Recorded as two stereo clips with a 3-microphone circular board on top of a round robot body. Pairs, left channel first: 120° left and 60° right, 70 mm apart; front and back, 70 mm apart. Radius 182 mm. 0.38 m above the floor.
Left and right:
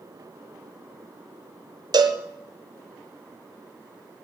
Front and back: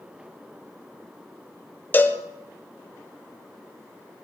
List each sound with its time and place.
1.9 s a cowbell: 65° right, 1.3 m